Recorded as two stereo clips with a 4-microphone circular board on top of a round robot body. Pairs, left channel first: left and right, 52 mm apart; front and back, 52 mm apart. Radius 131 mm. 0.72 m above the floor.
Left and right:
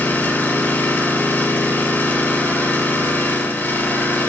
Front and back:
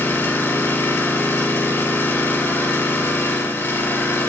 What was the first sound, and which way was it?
An engine running, 40° left.